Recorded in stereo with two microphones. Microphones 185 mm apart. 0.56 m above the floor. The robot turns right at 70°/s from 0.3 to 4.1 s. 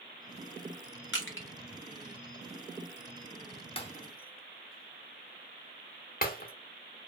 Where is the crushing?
75° left (ahead or behind), 0.8 m; by 1.5 s 85° left, 0.8 m.